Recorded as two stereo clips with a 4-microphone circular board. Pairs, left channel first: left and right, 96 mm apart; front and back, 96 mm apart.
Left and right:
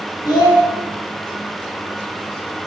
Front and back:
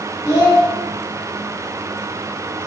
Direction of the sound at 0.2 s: 50° left.